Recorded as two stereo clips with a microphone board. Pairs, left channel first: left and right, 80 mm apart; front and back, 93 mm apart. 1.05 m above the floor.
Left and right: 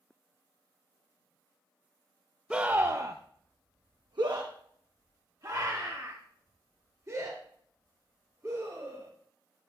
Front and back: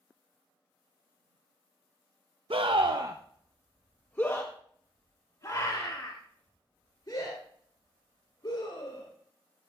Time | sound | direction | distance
2.5 | a scream | 165° right | 0.8 m